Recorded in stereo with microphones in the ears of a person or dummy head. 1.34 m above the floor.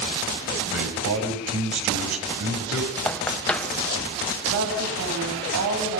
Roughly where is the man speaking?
Right.